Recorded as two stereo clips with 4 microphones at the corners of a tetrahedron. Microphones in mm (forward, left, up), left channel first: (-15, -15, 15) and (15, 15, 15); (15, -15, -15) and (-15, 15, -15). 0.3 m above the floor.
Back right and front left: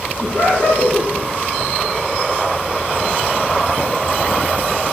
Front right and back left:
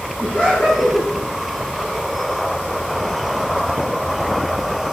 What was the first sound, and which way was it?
Laughter, 95° right.